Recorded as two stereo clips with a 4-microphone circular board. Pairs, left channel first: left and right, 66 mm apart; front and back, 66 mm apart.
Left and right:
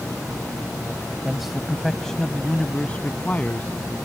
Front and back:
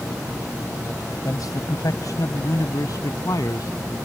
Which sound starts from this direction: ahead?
A man speaking, at 1.2 s.